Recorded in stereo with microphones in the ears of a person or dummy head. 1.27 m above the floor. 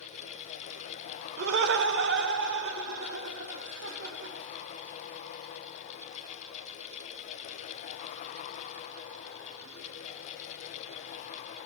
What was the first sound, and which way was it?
Laughter, 60° right (ahead or behind).